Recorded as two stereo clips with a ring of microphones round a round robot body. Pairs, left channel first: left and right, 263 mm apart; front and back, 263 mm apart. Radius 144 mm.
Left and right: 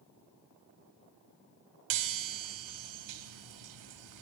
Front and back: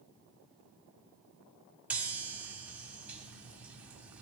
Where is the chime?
95° right, 1.2 m.